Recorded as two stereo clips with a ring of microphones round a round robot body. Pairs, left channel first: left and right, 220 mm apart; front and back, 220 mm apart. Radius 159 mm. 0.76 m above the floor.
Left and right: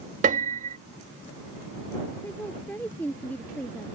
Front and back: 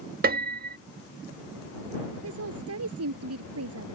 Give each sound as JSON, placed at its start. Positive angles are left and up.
{"t": 0.2, "sound": "a piano", "azimuth_deg": -140}
{"t": 2.2, "sound": "a woman speaking", "azimuth_deg": 175}